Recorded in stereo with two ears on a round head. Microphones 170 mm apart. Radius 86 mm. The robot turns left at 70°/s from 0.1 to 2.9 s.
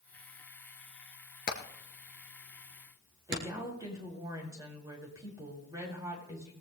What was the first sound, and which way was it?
Hammering, 50° left (ahead or behind).